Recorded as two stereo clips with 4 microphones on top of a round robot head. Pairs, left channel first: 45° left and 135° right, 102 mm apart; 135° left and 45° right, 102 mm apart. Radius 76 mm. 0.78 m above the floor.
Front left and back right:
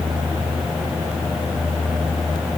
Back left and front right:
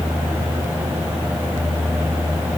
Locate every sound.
Only background noise.